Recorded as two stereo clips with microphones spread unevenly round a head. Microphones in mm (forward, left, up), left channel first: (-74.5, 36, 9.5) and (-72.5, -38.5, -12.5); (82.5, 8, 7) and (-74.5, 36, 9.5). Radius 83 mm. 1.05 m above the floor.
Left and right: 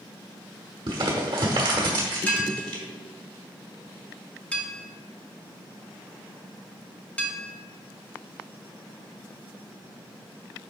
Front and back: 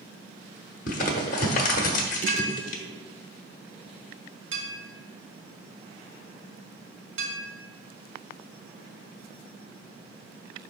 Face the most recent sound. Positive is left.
turn(degrees=165)